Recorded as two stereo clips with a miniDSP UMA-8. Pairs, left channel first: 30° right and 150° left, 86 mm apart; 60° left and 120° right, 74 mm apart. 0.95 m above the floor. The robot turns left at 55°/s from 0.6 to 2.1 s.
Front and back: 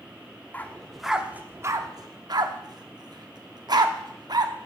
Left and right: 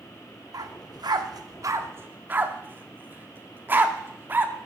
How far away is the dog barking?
About 0.7 m.